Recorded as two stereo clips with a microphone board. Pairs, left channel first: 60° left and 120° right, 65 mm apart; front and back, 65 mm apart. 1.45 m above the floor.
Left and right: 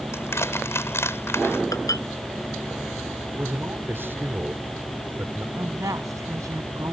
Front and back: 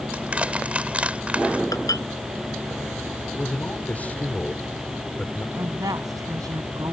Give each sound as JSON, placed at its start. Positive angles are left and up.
{"t": 0.1, "sound": "crushing", "azimuth_deg": 110}
{"t": 1.7, "sound": "dishes clattering", "azimuth_deg": 30}
{"t": 3.3, "sound": "a man speaking", "azimuth_deg": -65}
{"t": 5.6, "sound": "a woman speaking", "azimuth_deg": -155}